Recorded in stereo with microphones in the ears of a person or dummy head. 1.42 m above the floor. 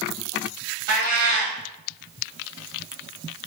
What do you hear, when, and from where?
0.9 s a cat meowing: 45° right (ahead or behind), 1.2 m